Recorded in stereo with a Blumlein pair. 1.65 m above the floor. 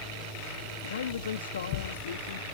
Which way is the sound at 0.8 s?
65° left.